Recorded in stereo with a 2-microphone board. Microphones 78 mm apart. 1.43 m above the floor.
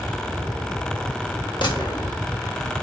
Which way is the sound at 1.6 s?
65° left (ahead or behind).